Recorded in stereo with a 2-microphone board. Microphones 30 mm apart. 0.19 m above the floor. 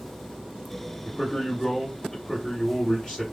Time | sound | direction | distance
1.1 | a man speaking | 20° left (ahead or behind) | 1.8 m